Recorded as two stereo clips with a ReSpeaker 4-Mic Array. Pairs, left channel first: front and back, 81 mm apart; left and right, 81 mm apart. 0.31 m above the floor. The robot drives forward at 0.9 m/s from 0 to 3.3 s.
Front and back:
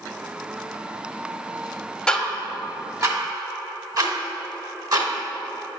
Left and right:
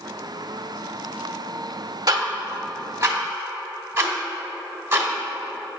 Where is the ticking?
80° right, 0.8 m; by 5.1 s 145° right, 1.2 m.